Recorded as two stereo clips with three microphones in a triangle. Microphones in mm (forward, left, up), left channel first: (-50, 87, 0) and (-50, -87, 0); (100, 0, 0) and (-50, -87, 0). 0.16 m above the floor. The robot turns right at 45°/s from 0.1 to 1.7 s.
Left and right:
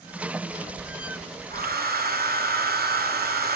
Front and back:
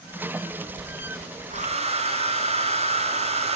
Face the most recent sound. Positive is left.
turn(degrees=-100)